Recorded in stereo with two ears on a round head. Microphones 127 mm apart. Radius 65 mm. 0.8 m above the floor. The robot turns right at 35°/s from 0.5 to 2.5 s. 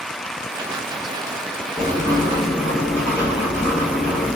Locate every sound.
1.8 s writing: 30° right (ahead or behind), 1.2 m; by 4.4 s 10° right (ahead or behind), 1.2 m